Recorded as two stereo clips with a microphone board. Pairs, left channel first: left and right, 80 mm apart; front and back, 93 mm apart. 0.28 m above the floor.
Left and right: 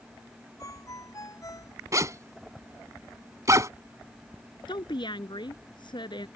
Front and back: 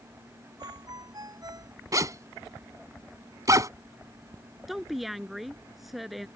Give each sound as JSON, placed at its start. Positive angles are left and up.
{"t": 0.6, "sound": "a ringtone", "azimuth_deg": 135}
{"t": 1.9, "sound": "a zipper", "azimuth_deg": -135}
{"t": 4.7, "sound": "a woman speaking", "azimuth_deg": 90}